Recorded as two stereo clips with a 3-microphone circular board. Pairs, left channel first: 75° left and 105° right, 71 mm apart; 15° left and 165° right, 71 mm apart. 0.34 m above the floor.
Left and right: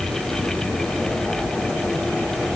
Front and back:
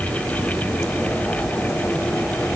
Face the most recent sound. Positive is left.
No sound to turn to.